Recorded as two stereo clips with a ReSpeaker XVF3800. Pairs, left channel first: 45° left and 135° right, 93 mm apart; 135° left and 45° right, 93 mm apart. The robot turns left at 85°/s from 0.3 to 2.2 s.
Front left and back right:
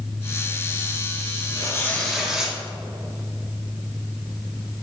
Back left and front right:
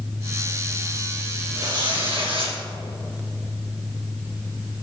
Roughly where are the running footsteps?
I don't hear running footsteps.